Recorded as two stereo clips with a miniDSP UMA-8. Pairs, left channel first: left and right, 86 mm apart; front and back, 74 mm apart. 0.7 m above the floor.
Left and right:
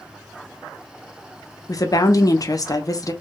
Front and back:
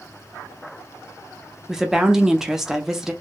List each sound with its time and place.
1.7 s a woman speaking: 100° left, 0.6 m